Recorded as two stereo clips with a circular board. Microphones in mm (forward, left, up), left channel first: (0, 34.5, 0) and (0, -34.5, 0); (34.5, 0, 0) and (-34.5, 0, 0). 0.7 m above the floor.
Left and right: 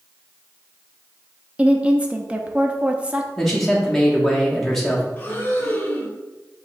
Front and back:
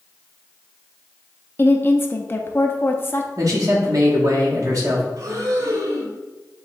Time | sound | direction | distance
1.6 | a woman speaking | 30° right | 0.6 m
3.4 | a man speaking | 175° left | 1.3 m
5.2 | breathing | 150° left | 0.9 m